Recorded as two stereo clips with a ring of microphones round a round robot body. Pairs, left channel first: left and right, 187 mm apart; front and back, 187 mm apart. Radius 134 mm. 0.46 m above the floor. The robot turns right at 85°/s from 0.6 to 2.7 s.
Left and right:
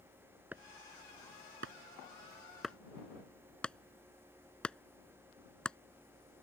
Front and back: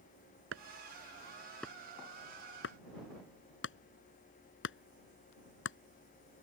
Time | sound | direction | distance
0.5 | chopping | 175° right | ?